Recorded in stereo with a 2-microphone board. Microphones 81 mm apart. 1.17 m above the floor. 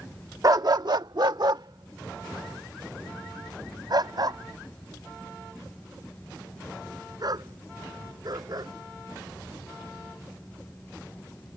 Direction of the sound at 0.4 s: 45° right (ahead or behind).